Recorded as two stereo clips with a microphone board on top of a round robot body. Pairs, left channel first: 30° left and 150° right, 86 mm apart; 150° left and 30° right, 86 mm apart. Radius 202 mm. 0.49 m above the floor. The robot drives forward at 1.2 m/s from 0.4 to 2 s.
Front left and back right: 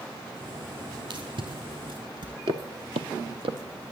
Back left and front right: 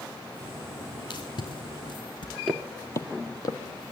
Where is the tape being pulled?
Straight behind, 5.5 m.